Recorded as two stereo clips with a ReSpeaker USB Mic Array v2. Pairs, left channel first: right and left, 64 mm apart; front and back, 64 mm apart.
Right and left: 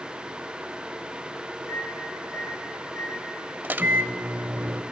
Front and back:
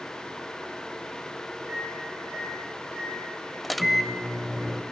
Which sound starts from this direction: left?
A microwave, at 3.6 s.